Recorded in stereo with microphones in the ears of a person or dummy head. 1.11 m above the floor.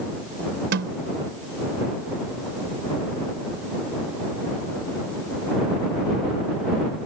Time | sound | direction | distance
0.7 | a snare drum | 70° right (ahead or behind) | ?